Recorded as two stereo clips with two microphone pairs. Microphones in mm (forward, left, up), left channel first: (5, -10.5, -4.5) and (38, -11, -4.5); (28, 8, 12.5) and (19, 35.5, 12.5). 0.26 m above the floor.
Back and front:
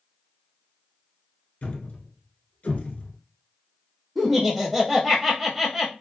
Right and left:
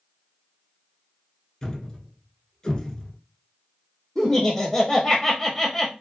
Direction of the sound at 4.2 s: 85° right.